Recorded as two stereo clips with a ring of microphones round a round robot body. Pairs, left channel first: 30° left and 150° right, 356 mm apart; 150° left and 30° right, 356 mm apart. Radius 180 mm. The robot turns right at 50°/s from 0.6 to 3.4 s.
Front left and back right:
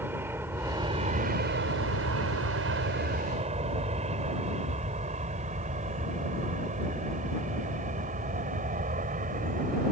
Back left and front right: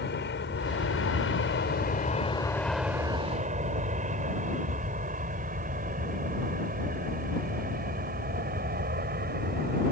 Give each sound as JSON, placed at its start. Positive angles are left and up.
{"t": 0.0, "sound": "an aircraft", "azimuth_deg": 130}